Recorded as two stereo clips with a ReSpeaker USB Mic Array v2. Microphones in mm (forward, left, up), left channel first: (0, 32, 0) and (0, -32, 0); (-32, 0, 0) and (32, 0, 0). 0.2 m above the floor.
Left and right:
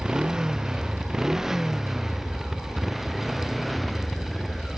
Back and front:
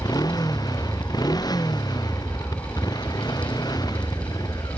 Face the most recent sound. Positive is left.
turn(degrees=175)